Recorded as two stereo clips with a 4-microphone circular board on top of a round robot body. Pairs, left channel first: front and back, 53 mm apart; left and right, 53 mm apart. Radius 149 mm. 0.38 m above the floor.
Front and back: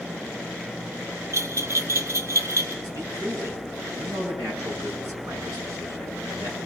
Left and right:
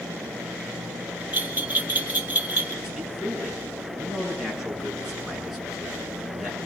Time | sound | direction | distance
1.3 | a bell | 145° right | 2 m
2.8 | a man speaking | 175° right | 8.5 m